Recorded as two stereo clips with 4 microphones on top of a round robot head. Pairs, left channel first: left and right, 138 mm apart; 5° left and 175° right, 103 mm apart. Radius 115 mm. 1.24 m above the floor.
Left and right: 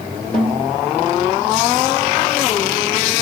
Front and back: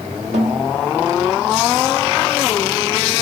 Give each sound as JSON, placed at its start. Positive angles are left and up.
{"t": 0.3, "sound": "a snare drum", "azimuth_deg": 175, "distance_m": 2.0}